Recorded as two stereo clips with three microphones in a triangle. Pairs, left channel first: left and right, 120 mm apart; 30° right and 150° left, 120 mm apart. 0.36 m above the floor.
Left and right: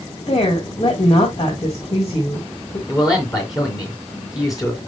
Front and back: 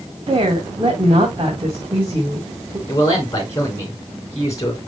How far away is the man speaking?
About 3.5 m.